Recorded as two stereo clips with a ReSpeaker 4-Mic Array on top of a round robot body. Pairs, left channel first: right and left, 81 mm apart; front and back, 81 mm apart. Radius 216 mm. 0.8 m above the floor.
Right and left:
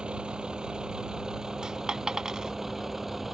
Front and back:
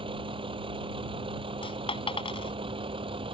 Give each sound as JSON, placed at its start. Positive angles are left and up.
{"t": 0.0, "sound": "a vehicle", "azimuth_deg": 170}
{"t": 1.6, "sound": "a dropped coin", "azimuth_deg": 10}